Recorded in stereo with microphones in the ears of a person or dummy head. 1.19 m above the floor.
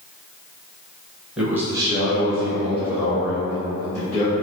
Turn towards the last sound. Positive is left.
turn(degrees=-40)  # may be behind; listen again after turning